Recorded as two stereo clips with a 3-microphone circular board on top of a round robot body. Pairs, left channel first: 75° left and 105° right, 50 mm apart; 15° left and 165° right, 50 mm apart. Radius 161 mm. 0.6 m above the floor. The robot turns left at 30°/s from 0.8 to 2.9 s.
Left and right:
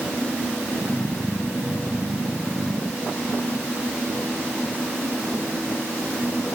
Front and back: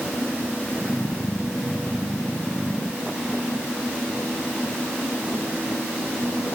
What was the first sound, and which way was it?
Only background noise.